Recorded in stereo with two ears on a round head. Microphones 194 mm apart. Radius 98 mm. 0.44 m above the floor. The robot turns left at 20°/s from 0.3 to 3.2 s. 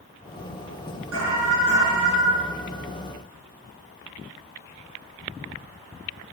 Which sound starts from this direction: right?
An alarm, at 1.1 s.